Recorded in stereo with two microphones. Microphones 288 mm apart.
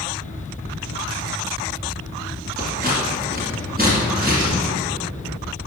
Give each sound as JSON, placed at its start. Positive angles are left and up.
{"t": 2.6, "sound": "scissors", "side_deg": -30, "distance_m": 1.9}